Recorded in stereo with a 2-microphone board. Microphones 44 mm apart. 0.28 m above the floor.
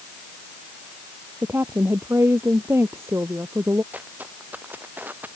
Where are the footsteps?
45° right (ahead or behind).